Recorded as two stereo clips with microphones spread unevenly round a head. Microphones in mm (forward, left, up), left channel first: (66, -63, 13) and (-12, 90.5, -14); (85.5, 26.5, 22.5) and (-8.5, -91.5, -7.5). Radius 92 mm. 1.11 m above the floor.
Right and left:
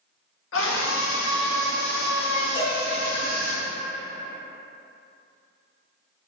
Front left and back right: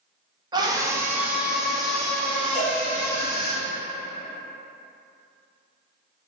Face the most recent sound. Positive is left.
turn(degrees=-75)